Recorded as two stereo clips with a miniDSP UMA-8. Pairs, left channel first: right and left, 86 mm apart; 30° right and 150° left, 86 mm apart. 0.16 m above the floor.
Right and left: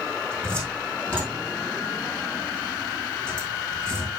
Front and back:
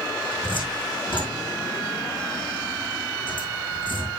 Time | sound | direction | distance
0.3 | a cupboard door | 15° right | 4.5 m